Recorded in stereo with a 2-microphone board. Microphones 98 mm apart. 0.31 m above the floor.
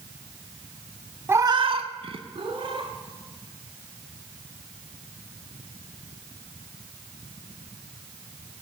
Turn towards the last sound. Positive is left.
turn(degrees=-60)  # may be behind; listen again after turning